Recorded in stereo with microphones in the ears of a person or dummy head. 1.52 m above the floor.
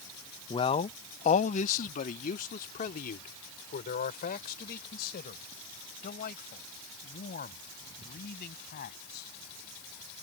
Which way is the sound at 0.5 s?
30° left (ahead or behind).